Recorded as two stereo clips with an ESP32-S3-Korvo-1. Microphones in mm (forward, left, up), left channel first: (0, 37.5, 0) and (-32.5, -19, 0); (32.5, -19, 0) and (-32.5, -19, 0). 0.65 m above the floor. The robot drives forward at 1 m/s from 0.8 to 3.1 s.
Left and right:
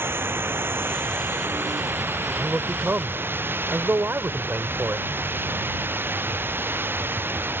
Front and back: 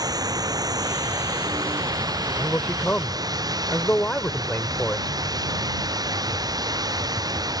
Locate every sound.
0.0 s running water: 175° right
2.4 s a man speaking: 55° right; by 5.1 s 65° right